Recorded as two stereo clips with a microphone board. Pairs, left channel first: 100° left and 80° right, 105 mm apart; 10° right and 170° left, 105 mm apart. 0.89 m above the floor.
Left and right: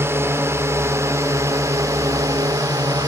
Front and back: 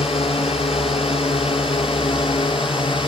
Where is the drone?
15° right; by 3.1 s 35° right.